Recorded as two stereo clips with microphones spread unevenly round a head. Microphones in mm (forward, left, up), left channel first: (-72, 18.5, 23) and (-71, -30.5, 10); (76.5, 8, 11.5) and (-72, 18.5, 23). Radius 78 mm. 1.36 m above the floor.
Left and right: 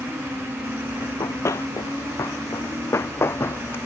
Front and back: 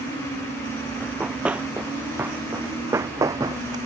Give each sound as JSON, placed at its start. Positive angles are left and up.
{"t": 1.0, "sound": "running footsteps", "azimuth_deg": 95}